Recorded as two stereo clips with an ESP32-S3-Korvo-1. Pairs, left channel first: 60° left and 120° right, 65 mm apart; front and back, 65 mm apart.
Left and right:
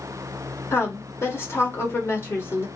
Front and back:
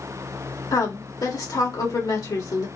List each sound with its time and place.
0.7 s a woman speaking: 10° left, 2.0 m